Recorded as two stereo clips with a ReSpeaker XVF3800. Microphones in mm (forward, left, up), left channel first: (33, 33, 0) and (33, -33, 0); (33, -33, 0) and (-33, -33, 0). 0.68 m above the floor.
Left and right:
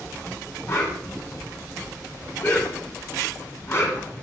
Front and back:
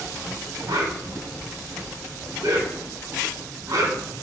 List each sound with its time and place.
0.7 s a whoosh: 140° left, 2.5 m